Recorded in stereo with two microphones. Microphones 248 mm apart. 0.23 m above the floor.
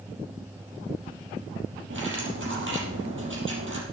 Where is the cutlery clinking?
50° right (ahead or behind), 5 m.